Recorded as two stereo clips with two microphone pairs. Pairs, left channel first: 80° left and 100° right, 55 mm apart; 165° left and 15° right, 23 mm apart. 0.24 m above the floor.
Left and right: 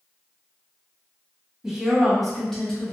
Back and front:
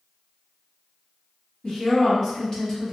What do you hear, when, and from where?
1.6 s a woman speaking: 170° right, 1.3 m; by 2.9 s 125° left, 1.1 m